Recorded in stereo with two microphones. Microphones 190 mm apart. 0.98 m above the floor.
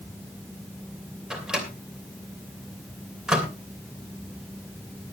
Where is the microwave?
5° right (ahead or behind), 2.5 m.